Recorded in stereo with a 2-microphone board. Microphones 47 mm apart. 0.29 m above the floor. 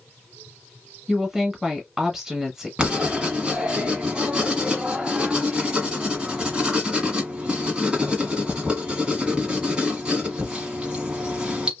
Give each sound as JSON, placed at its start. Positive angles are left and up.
{"t": 1.1, "sound": "a woman speaking", "side_deg": -10, "distance_m": 1.0}
{"t": 2.8, "sound": "writing", "side_deg": -20, "distance_m": 1.1}